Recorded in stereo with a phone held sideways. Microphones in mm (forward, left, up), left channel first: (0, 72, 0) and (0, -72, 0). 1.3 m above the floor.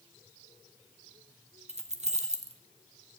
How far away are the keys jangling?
About 0.7 m.